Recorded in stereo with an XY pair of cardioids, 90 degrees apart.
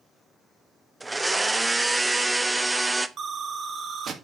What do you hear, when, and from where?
1.0 s a blender: 20° right, 0.7 m
3.2 s an explosion: 60° right, 1.5 m